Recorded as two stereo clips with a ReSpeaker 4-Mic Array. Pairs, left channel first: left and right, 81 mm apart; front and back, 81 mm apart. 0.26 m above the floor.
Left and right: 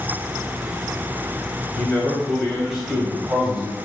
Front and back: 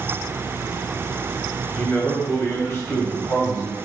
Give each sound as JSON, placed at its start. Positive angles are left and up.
{"t": 1.8, "sound": "a man speaking", "azimuth_deg": 45, "distance_m": 1.3}